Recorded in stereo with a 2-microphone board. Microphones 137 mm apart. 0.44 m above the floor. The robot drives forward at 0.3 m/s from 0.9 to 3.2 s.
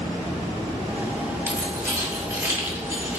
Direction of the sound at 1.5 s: 20° right (ahead or behind).